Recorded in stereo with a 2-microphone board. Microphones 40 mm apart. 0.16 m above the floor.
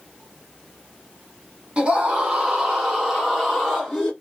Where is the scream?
30° right (ahead or behind), 1.3 m; by 4.1 s centre (ahead or behind), 1.4 m.